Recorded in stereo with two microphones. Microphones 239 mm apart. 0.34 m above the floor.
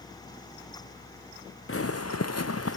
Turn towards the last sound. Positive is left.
turn(degrees=60)  # may be behind; listen again after turning